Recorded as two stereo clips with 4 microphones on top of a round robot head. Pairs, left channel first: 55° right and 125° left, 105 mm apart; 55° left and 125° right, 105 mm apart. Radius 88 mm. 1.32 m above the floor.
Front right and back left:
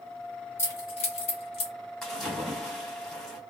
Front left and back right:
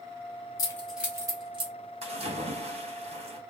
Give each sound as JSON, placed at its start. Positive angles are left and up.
{"t": 0.6, "sound": "keys jangling", "azimuth_deg": 10, "distance_m": 0.6}
{"t": 2.0, "sound": "a splash", "azimuth_deg": -140, "distance_m": 1.5}